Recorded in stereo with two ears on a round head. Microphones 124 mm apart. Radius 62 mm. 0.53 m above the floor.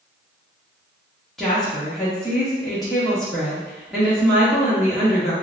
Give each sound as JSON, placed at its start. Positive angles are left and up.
{"t": 1.4, "sound": "a woman speaking", "side_deg": 0, "distance_m": 0.8}